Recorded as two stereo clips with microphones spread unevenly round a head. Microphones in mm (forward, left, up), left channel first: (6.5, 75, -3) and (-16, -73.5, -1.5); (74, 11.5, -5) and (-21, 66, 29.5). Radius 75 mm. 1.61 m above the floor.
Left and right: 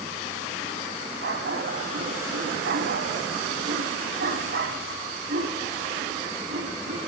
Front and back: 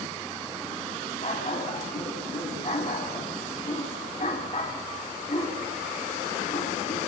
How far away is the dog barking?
About 3.5 m.